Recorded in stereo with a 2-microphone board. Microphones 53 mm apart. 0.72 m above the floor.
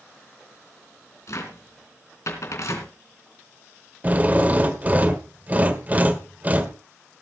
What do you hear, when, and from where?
1.3 s a cupboard door: 65° left (ahead or behind), 3 m
4.0 s a drill: 30° right (ahead or behind), 1.4 m